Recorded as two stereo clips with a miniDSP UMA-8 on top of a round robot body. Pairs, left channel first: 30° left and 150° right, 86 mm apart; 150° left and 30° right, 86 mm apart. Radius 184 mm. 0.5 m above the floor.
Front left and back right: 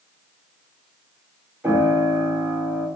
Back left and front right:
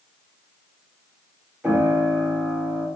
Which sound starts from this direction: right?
A piano, at 1.6 s.